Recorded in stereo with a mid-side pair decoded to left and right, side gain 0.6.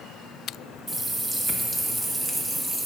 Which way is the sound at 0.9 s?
20° right.